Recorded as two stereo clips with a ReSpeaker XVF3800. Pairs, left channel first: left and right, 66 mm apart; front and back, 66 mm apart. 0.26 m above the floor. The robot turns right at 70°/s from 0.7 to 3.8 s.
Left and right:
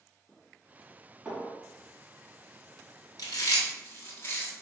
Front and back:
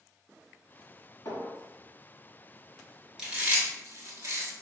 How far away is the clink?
About 1.2 m.